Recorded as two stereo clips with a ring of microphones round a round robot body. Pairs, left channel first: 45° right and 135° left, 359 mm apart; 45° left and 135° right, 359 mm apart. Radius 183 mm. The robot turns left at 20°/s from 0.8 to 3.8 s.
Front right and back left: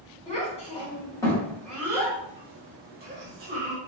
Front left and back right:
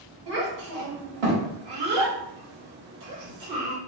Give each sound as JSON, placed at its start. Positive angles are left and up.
{"t": 0.3, "sound": "a child speaking", "azimuth_deg": -120, "distance_m": 1.2}